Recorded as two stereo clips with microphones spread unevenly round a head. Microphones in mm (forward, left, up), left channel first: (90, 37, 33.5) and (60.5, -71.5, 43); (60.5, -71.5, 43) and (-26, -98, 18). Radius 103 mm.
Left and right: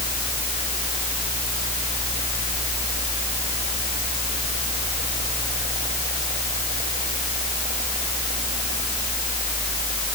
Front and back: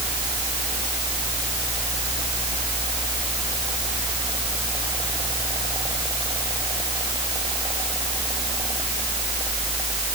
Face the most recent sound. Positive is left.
turn(degrees=-125)